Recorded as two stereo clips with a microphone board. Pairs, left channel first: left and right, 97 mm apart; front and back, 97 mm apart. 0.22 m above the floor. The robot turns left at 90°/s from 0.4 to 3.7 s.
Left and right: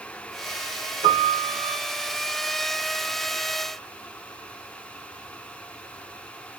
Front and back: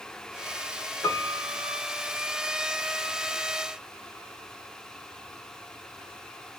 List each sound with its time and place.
1.0 s a piano: 65° right, 0.8 m; by 1.8 s 130° right, 0.8 m